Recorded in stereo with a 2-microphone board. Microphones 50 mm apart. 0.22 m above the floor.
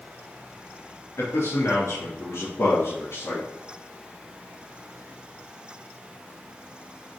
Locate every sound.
1.2 s a man speaking: 65° left (ahead or behind), 2.5 m; by 3.5 s 70° left (ahead or behind), 3.5 m